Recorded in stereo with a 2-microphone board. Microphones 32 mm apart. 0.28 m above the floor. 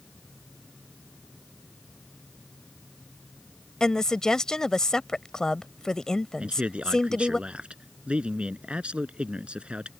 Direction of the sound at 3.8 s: 20° left (ahead or behind).